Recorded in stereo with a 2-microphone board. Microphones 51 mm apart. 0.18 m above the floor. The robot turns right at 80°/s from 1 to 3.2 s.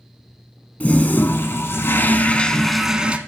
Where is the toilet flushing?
40° left, 0.7 m; by 3.2 s 145° right, 0.7 m.